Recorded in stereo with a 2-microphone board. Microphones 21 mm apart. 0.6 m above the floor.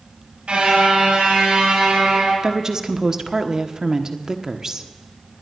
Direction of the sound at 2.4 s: 30° right (ahead or behind).